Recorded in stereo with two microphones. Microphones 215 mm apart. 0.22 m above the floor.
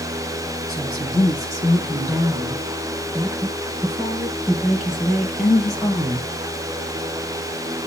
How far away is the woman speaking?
About 6 m.